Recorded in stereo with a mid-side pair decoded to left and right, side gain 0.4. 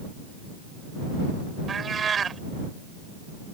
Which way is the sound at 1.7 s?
50° right.